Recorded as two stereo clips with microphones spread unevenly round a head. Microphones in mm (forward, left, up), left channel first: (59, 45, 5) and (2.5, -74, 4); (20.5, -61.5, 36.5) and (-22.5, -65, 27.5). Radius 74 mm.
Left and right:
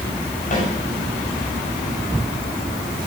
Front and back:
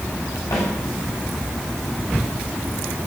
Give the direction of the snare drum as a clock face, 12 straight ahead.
11 o'clock.